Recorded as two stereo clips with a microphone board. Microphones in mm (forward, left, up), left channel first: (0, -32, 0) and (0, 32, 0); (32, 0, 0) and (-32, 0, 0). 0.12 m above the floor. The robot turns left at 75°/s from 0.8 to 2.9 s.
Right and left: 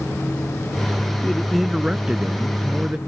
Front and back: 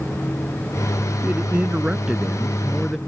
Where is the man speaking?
160° right; by 3.0 s 70° left.